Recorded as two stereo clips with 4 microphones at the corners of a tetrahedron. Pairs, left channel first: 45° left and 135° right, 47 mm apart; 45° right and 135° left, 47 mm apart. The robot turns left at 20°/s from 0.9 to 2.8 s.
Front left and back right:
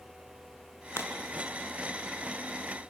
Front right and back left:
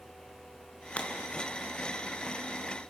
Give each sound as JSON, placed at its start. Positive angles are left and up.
{"t": 1.0, "sound": "breaking glass", "azimuth_deg": 20, "distance_m": 4.0}